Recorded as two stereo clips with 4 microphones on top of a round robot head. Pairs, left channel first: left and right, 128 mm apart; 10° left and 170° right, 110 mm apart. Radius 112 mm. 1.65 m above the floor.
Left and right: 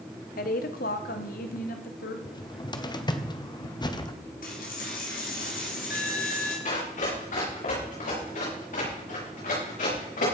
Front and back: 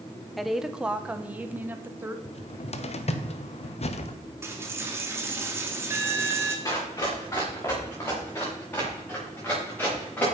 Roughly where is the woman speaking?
Left.